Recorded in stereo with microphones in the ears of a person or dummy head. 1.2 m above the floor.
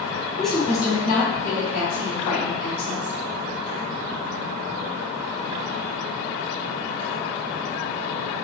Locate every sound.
0.4 s a woman speaking: 5° right (ahead or behind), 0.9 m; by 3.1 s 50° left (ahead or behind), 2.5 m